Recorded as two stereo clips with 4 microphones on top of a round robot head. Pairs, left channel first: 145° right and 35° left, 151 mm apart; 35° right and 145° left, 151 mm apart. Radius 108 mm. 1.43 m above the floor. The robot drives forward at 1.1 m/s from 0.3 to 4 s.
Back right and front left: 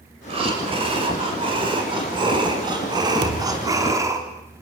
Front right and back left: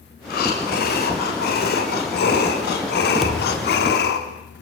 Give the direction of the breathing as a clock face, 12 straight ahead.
1 o'clock.